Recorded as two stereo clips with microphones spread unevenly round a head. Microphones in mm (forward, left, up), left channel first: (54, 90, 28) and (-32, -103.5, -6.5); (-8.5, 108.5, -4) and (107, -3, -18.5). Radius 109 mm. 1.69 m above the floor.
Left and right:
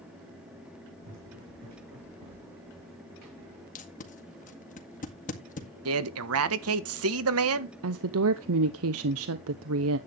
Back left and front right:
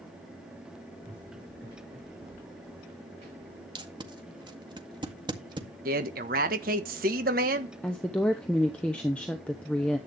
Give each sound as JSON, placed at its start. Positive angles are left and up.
{"t": 1.0, "sound": "running footsteps", "azimuth_deg": -115, "distance_m": 4.5}
{"t": 3.8, "sound": "tape being pulled", "azimuth_deg": 20, "distance_m": 2.0}
{"t": 5.8, "sound": "a man speaking", "azimuth_deg": -95, "distance_m": 1.4}
{"t": 7.8, "sound": "a woman speaking", "azimuth_deg": -140, "distance_m": 0.8}